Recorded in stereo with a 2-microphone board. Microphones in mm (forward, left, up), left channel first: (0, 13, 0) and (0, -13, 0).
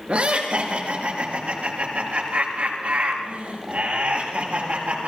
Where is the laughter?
60° right (ahead or behind), 4.5 m; by 5.1 s 70° right (ahead or behind), 8 m.